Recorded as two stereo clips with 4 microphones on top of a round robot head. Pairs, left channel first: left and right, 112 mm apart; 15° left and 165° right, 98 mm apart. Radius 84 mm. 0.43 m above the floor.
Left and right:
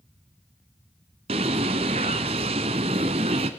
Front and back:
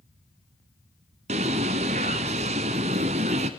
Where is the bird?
140° right, 0.7 m.